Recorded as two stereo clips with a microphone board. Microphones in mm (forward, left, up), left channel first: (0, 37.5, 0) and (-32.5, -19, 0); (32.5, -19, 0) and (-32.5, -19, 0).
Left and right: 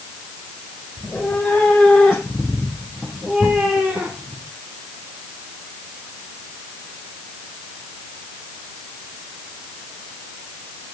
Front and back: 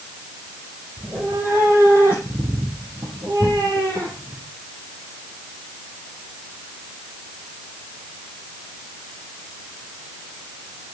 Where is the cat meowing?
130° left, 7 m; by 4.4 s 175° left, 6 m.